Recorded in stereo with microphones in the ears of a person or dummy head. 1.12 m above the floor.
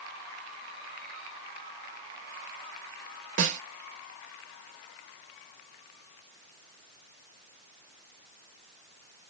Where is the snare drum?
50° right (ahead or behind), 1.0 m.